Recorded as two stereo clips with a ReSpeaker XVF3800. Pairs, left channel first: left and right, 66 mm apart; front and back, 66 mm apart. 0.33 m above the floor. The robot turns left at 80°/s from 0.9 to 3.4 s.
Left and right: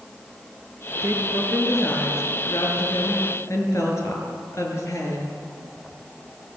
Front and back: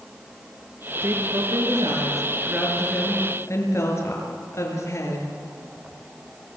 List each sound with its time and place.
1.0 s a woman speaking: 120° right, 6 m; by 5.3 s 45° left, 6 m